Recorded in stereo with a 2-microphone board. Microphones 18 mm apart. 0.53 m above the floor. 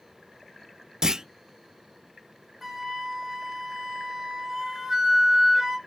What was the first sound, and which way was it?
A clunk, 40° right (ahead or behind).